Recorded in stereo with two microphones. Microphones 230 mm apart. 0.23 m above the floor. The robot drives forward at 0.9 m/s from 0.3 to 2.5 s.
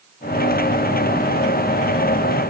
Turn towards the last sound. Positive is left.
No sound to turn to.